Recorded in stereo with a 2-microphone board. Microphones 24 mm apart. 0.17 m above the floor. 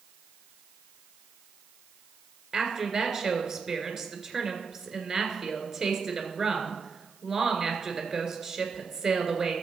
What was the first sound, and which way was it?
A woman speaking, 20° right (ahead or behind).